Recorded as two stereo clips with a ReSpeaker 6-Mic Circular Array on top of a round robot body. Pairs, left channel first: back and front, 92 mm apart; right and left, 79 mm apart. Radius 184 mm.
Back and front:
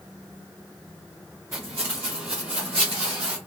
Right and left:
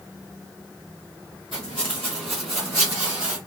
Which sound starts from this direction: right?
Footsteps, at 1.5 s.